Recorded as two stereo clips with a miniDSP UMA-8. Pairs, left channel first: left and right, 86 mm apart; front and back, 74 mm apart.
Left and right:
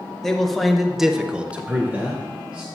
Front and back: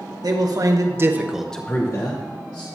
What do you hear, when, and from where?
0.2 s a man speaking: 175° left, 1.4 m; by 2.7 s 15° right, 1.4 m